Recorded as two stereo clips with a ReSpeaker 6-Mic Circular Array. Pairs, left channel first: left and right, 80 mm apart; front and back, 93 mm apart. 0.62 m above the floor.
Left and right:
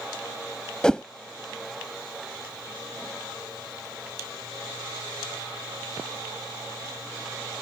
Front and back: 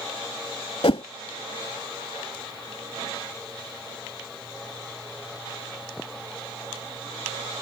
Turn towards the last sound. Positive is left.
turn(degrees=10)